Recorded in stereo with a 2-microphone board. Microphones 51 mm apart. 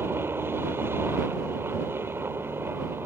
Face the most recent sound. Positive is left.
turn(degrees=-45)  # may be behind; listen again after turning